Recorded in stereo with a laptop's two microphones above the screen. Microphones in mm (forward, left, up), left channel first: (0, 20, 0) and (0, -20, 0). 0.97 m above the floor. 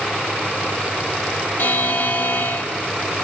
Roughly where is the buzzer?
Left.